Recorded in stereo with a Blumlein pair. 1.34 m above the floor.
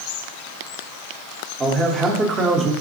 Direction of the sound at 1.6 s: 15° right.